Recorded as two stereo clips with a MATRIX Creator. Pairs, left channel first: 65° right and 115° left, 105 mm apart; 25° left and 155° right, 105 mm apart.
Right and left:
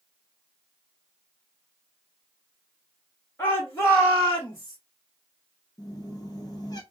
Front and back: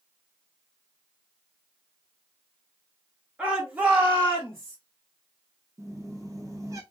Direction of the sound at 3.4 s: 95° right.